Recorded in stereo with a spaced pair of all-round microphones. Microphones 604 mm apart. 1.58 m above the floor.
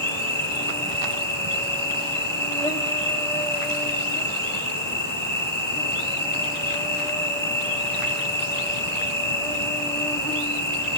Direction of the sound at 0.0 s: 5° left (ahead or behind).